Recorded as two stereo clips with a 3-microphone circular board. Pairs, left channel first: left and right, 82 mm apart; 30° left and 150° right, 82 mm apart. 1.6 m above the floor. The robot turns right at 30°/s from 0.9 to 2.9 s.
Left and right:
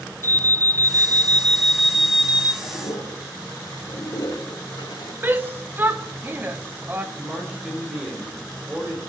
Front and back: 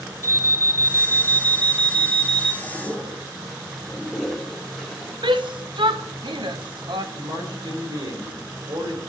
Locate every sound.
0.2 s an alarm: 150° left, 0.9 m; by 2.5 s 160° right, 0.9 m
2.6 s a toilet flushing: 105° left, 3 m; by 5.1 s 115° left, 3 m
5.2 s a shout: 155° right, 1.1 m
7.2 s a man speaking: 175° right, 4.5 m